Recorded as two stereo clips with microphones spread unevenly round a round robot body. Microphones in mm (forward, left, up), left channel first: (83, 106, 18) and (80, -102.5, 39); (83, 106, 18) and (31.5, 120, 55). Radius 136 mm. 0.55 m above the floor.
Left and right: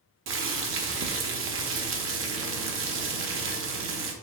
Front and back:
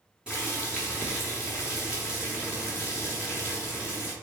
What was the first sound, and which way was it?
Boiling, 95° right.